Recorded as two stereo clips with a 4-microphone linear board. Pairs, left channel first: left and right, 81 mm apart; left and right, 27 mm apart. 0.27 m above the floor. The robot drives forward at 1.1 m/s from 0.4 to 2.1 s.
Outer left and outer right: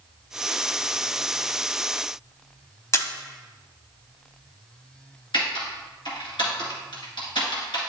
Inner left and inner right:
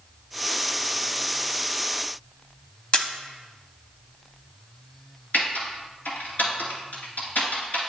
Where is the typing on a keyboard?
75° left (ahead or behind), 2.5 m.